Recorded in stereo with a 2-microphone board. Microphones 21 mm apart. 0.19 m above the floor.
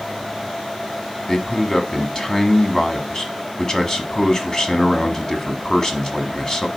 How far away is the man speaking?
About 1.2 m.